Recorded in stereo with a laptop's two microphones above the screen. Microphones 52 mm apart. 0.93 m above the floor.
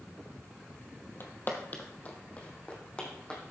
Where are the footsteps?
45° left (ahead or behind), 1.5 m; by 3.4 s 20° left (ahead or behind), 3 m.